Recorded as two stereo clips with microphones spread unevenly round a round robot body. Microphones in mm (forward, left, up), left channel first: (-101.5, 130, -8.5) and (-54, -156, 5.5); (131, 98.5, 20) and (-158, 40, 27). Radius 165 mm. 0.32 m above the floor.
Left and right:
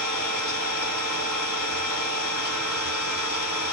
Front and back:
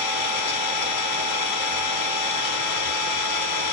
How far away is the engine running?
About 1.5 m.